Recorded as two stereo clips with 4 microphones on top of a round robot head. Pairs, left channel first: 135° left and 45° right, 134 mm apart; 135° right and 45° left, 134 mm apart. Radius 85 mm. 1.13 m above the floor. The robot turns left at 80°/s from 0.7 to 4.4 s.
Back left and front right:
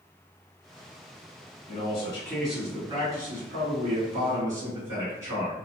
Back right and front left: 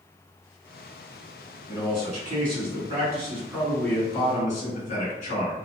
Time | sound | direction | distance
1.7 | a man speaking | 115° left | 1.9 m